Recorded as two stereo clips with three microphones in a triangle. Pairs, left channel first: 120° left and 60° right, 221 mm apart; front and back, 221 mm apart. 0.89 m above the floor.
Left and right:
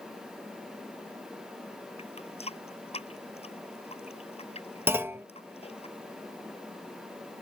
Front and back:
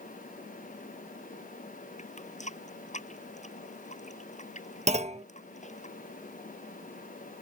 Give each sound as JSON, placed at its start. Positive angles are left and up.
{"t": 2.0, "sound": "a running tap", "azimuth_deg": 60}
{"t": 4.9, "sound": "a clunk", "azimuth_deg": -135}